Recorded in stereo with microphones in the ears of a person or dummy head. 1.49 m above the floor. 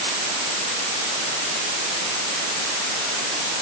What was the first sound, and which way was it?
Only background noise.